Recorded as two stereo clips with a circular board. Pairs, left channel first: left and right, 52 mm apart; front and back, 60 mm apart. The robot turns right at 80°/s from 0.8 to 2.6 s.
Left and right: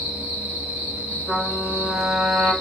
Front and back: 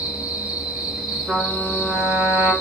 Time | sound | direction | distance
0.0 | an insect | 120° right | 1.6 m
1.3 | a trumpet | 105° left | 1.6 m